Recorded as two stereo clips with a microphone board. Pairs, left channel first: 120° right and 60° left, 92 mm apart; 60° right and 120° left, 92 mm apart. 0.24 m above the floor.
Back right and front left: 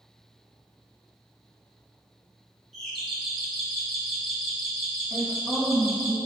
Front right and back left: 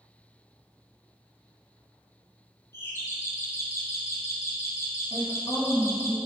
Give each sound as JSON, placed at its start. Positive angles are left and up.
{"t": 2.7, "sound": "a doorbell", "azimuth_deg": -35, "distance_m": 1.9}
{"t": 5.1, "sound": "a woman speaking", "azimuth_deg": -65, "distance_m": 2.5}